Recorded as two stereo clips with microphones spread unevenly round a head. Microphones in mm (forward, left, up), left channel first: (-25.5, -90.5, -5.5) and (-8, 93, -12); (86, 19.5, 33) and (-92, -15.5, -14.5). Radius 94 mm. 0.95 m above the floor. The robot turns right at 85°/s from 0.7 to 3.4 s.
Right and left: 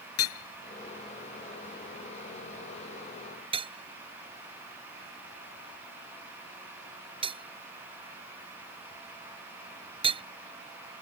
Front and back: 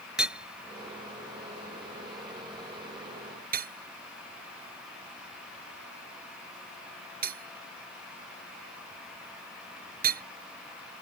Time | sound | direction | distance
0.2 | hammering | 80° right | ?